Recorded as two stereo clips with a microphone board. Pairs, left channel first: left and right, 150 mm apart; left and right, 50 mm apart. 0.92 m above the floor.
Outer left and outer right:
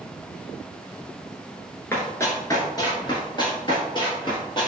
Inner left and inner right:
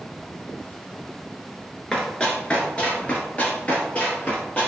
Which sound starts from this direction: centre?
Running footsteps, at 1.9 s.